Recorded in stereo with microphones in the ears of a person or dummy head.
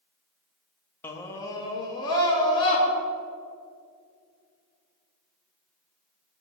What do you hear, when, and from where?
1.0 s a scream: 10° left (ahead or behind), 1.0 m; by 2.8 s 25° left (ahead or behind), 3.5 m